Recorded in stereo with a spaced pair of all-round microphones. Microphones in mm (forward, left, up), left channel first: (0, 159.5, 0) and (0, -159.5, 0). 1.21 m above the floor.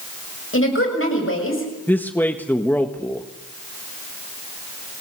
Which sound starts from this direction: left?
A woman speaking, at 0.5 s.